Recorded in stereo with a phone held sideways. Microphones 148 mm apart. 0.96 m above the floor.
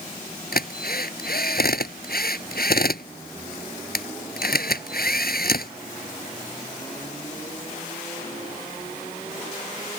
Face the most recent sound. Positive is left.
turn(degrees=80)